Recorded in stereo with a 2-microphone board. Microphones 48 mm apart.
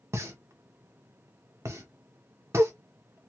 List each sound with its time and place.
0.1 s a pop: 65° right (ahead or behind), 0.7 m